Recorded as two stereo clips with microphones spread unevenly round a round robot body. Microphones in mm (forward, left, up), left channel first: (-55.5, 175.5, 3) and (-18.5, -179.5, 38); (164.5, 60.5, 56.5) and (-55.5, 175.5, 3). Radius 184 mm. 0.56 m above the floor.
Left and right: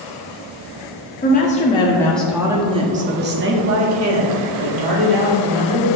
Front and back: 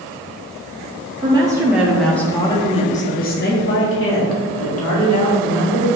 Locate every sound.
1.2 s a woman speaking: 125° left, 1.2 m; by 6.0 s 55° right, 2 m